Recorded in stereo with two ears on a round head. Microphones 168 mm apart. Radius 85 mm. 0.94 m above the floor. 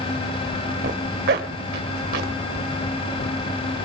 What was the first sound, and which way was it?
A zipper, 60° right (ahead or behind).